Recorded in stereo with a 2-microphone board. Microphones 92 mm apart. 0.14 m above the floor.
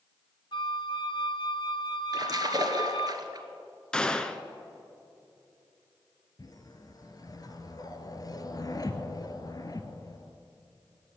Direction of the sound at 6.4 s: 45° left (ahead or behind).